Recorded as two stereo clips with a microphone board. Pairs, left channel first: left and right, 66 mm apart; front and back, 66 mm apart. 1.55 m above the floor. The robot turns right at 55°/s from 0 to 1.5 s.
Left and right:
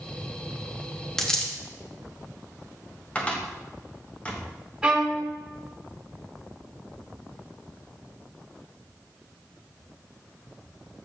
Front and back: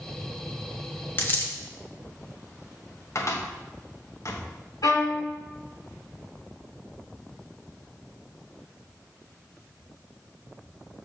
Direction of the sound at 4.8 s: 10° right.